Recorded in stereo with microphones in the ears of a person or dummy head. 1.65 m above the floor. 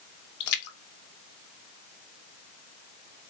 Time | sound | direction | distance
0.4 | a splash | 55° left (ahead or behind) | 0.8 m